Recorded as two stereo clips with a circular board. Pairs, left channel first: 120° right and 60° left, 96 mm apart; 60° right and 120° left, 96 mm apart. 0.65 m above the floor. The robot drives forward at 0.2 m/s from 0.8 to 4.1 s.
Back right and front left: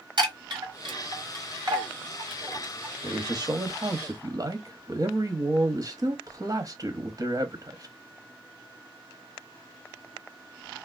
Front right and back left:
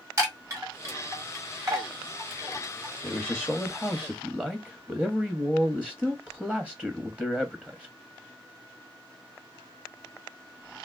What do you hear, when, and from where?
0.2 s a chime: 70° left, 1.7 m; by 2.9 s 85° left, 1.7 m
3.0 s a man speaking: 30° left, 0.7 m; by 8.0 s 50° left, 0.6 m